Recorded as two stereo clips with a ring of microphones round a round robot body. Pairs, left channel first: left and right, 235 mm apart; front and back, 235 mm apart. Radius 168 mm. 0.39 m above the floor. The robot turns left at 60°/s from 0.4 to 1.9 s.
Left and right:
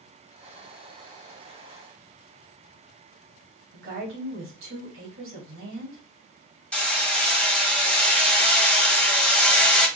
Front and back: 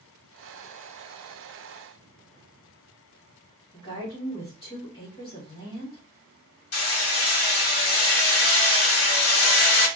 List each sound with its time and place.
3.7 s a woman speaking: 75° right, 2.5 m
6.7 s hammering: 5° left, 1.8 m